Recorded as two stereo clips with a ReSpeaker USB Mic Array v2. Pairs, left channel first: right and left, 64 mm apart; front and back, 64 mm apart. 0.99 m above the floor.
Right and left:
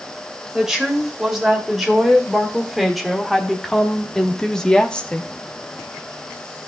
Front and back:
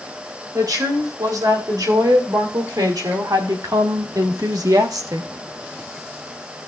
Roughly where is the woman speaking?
Behind.